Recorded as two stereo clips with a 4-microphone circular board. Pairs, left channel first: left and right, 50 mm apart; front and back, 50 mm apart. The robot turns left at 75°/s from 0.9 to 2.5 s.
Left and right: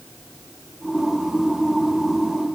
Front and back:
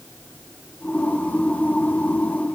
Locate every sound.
Only background noise.